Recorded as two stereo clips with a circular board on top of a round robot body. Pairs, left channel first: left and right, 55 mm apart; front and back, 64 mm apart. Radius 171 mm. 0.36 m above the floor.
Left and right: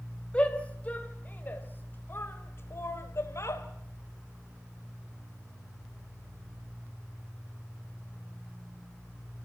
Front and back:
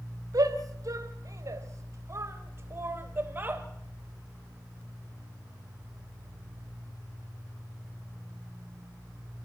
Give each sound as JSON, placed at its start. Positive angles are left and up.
{"t": 0.3, "sound": "a shout", "azimuth_deg": 160, "distance_m": 3.0}